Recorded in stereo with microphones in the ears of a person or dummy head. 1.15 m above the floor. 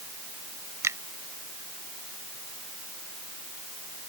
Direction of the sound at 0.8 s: 20° right (ahead or behind).